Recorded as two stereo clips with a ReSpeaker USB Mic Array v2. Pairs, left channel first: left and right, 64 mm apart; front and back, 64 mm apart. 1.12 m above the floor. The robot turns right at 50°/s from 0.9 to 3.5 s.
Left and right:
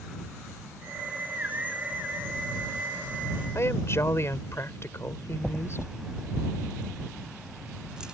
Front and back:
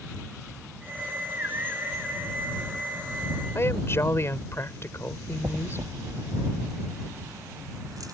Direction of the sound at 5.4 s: 170° right.